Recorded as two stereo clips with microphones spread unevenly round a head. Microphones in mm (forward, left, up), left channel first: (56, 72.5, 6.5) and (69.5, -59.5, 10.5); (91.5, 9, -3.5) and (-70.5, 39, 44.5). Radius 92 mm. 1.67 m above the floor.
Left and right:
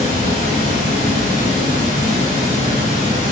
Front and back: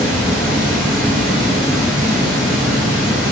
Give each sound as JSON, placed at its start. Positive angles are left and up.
{"t": 0.0, "sound": "running water", "azimuth_deg": -110, "distance_m": 1.0}